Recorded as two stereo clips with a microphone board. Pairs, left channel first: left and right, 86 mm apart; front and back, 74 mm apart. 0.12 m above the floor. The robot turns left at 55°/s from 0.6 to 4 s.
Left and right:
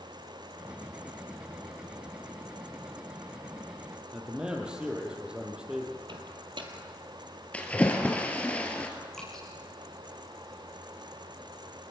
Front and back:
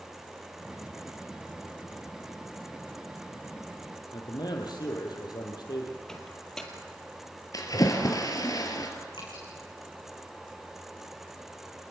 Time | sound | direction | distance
4.1 | a man speaking | 10° right | 4 m
6.1 | a microwave | 85° right | 2.5 m
7.5 | a splash | 20° left | 2.5 m
9.1 | dripping | 5° left | 6.5 m